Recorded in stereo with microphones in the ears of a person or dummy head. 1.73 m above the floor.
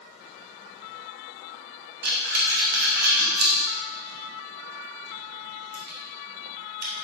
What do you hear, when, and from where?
2.0 s breathing: 55° right (ahead or behind), 1.3 m